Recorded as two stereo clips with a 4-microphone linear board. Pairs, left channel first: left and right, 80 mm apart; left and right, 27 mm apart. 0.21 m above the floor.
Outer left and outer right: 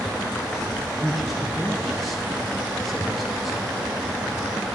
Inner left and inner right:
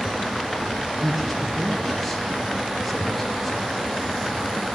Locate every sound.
1.0 s a man speaking: centre (ahead or behind), 1.2 m